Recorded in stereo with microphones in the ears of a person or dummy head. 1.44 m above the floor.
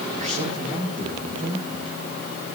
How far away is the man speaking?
About 7 m.